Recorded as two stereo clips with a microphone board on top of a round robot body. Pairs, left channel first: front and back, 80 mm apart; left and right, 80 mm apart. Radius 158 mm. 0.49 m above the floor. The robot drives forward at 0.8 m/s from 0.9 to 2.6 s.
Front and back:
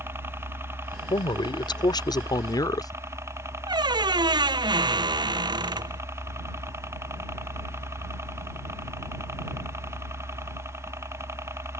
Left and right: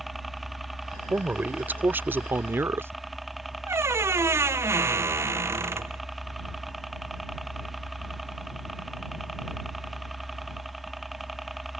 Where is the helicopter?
Straight behind.